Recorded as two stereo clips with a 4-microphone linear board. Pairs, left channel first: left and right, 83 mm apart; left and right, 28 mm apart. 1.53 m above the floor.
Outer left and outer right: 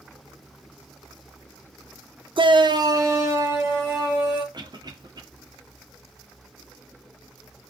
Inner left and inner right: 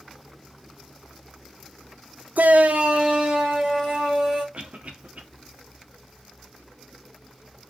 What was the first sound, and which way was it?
A shout, 80° right.